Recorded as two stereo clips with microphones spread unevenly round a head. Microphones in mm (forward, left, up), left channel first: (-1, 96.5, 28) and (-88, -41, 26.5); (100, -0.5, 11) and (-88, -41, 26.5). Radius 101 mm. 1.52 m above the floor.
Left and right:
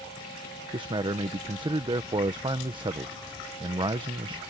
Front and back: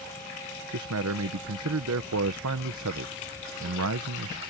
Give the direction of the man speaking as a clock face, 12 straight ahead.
6 o'clock.